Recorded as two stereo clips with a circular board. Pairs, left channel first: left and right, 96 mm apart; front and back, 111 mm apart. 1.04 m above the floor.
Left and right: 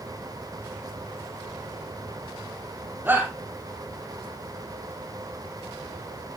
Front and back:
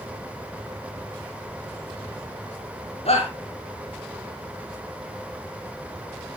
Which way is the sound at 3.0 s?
20° right.